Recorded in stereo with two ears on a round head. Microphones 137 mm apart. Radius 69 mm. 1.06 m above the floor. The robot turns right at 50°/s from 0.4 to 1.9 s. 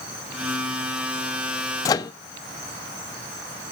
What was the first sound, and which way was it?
A microwave, 20° left (ahead or behind).